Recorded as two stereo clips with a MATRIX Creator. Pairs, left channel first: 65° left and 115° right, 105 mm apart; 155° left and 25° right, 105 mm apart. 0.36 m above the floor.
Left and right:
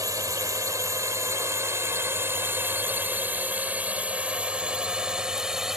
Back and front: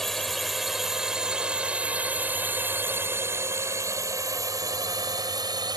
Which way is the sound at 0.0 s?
115° right.